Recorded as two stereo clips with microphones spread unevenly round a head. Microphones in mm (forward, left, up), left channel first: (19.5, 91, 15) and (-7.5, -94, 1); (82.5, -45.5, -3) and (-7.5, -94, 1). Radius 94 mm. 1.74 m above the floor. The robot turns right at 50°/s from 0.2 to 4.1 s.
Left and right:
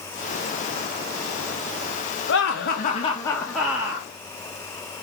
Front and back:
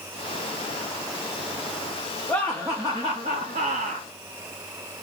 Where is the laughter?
105° left, 1.0 m; by 4.1 s 165° right, 1.0 m.